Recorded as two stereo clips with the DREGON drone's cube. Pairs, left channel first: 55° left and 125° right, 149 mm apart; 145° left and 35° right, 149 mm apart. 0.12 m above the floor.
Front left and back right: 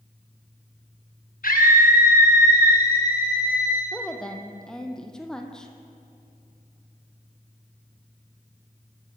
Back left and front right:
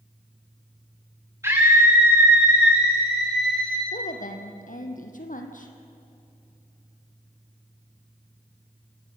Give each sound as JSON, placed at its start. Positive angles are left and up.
{"t": 1.4, "sound": "a scream", "azimuth_deg": 35, "distance_m": 8.0}
{"t": 3.9, "sound": "a woman speaking", "azimuth_deg": 140, "distance_m": 3.0}